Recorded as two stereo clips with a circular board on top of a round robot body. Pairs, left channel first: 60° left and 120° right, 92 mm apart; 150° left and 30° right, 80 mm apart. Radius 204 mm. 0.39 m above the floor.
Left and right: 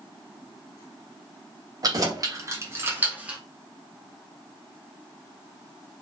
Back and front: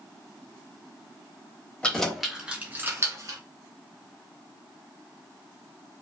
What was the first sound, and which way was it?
Keys jangling, 135° right.